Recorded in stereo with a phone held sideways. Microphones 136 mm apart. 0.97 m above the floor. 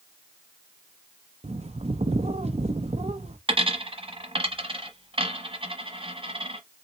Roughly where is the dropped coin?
Right.